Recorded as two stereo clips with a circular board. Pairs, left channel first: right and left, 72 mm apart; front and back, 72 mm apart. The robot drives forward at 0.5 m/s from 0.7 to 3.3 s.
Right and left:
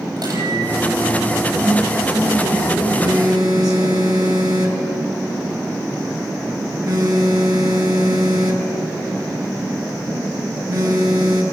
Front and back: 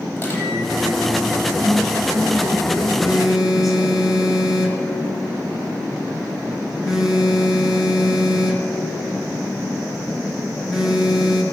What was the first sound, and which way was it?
A microwave, 65° left.